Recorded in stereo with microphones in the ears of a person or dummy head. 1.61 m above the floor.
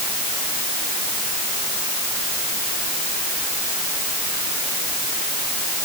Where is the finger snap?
No finger snap in this recording.